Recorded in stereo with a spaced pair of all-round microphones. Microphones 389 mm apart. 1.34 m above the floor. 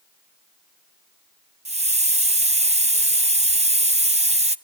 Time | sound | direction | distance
1.6 | a hiss | 15° right (ahead or behind) | 0.6 m